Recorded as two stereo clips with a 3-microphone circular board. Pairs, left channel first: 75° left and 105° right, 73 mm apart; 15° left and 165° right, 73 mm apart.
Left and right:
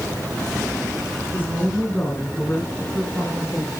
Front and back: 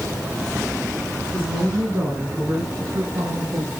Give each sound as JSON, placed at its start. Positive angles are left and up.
{"t": 1.3, "sound": "a woman speaking", "azimuth_deg": 135, "distance_m": 5.0}